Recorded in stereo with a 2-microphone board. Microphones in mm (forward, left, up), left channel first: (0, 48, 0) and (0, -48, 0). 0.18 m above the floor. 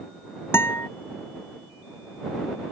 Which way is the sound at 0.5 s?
20° left (ahead or behind).